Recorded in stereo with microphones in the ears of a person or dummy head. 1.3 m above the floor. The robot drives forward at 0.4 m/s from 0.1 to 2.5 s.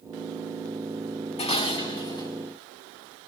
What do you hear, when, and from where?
1.4 s dishes clattering: 30° left (ahead or behind), 0.8 m; by 2.3 s 20° left (ahead or behind), 1.1 m